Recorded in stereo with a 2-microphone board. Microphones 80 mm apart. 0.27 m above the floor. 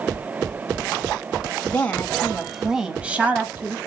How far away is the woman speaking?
About 1.0 m.